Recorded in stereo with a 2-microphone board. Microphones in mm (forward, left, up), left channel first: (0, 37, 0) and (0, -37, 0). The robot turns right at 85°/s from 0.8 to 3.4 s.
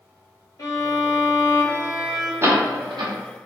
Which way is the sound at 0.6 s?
70° left.